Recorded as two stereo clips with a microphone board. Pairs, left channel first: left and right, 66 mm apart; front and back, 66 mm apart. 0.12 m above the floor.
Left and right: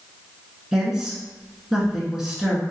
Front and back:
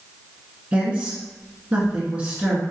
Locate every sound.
0.7 s a woman speaking: 160° right, 1.2 m